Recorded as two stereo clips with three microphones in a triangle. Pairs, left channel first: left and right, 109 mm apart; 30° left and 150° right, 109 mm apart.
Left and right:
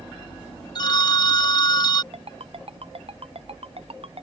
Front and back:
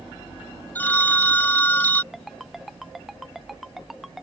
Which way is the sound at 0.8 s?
95° left.